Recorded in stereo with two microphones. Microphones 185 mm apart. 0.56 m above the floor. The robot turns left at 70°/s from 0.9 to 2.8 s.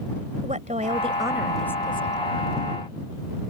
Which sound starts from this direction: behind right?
A woman speaking, at 0.4 s.